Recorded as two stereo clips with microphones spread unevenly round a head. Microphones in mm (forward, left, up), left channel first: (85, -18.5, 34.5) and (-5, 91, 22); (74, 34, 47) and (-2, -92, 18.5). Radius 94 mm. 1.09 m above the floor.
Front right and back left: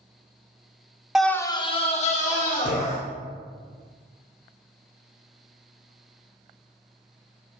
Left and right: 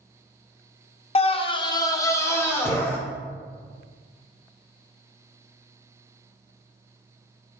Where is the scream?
55° left, 0.8 m; by 3.0 s 20° right, 2.5 m.